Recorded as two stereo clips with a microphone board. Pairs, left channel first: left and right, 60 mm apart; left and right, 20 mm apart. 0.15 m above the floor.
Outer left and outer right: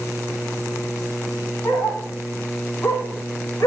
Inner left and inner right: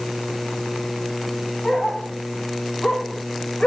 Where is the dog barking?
35° left (ahead or behind), 3 m; by 3.7 s 65° left (ahead or behind), 1.3 m.